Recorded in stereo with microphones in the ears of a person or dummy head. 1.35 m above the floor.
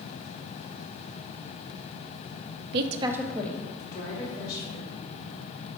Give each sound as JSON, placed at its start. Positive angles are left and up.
{"t": 2.7, "sound": "a woman speaking", "side_deg": -60, "distance_m": 0.6}